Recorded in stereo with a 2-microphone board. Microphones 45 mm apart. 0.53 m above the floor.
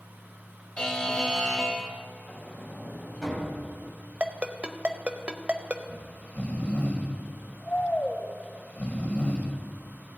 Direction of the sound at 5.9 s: 40° left (ahead or behind).